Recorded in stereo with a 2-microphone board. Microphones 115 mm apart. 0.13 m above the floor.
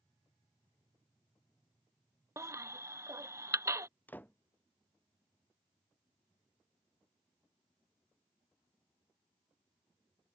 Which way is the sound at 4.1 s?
15° left (ahead or behind).